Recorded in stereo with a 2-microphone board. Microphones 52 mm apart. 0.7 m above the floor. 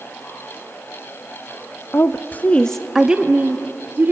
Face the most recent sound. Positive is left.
turn(degrees=-40)  # may be behind; listen again after turning